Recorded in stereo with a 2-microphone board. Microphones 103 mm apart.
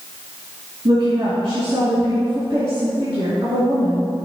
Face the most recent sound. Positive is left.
turn(degrees=-55)  # may be behind; listen again after turning